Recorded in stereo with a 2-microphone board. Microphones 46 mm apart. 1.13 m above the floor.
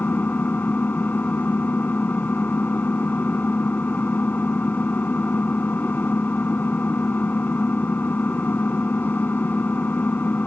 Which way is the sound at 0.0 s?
35° left (ahead or behind).